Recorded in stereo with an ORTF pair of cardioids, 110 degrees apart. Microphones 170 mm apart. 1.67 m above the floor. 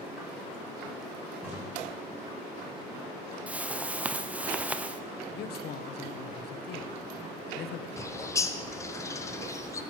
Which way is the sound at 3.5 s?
10° right.